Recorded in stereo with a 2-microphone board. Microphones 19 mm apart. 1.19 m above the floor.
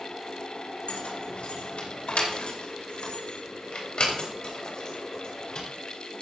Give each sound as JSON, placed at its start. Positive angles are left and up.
{"t": 0.9, "sound": "keys jangling", "side_deg": 80, "distance_m": 3.0}